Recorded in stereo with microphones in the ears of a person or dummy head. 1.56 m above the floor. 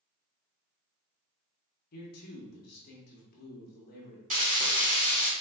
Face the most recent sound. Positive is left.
turn(degrees=-45)  # may be behind; listen again after turning